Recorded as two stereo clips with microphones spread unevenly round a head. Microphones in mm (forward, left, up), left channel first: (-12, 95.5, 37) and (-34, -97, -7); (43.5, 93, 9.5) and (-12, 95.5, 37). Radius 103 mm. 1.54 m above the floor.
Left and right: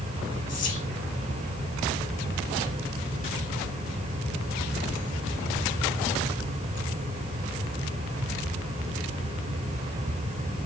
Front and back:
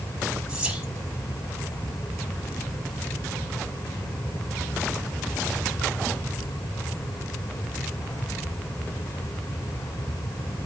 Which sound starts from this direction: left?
Whispering, at 0.5 s.